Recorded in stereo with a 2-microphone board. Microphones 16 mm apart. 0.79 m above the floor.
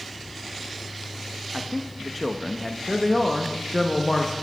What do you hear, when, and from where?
1.5 s a man speaking: 5° left (ahead or behind), 0.5 m
2.9 s a man speaking: 15° left (ahead or behind), 0.7 m